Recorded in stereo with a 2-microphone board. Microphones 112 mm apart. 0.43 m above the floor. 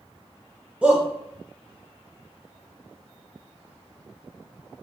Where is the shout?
10° right (ahead or behind), 1.4 m.